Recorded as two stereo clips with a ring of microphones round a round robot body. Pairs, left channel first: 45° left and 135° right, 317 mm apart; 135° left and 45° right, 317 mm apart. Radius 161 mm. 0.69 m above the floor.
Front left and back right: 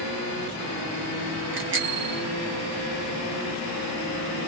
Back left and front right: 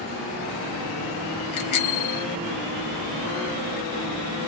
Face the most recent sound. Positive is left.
turn(degrees=170)